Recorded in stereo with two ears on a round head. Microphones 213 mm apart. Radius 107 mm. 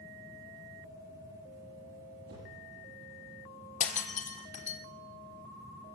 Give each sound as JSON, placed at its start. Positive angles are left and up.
{"t": 2.3, "sound": "a whoosh", "side_deg": -45, "distance_m": 10.0}
{"t": 3.8, "sound": "breaking glass", "side_deg": 30, "distance_m": 1.8}